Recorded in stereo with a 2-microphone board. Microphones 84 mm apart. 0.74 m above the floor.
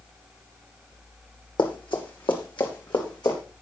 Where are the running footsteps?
70° left (ahead or behind), 2.5 m; by 3.4 s 60° left (ahead or behind), 3.5 m.